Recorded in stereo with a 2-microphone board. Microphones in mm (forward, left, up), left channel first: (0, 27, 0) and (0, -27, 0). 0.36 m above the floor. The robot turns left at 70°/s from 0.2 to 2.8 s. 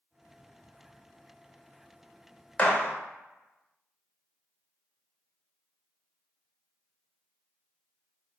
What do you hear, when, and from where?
2.6 s a gunshot: 30° left (ahead or behind), 0.7 m